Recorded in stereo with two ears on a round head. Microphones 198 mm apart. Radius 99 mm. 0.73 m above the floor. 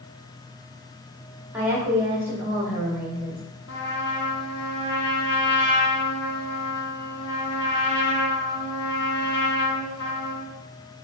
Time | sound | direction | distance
1.5 | a woman speaking | 10° right (ahead or behind) | 1.7 m
3.7 | a trumpet | 50° left (ahead or behind) | 1.1 m